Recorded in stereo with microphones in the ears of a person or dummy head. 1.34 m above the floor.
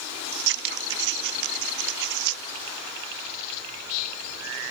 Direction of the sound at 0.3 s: 60° right (ahead or behind).